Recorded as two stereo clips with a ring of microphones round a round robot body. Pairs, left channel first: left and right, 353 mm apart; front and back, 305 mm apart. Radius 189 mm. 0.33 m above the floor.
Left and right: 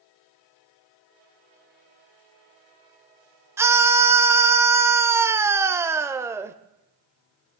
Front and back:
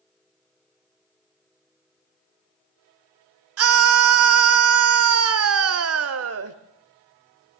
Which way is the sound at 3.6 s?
170° right.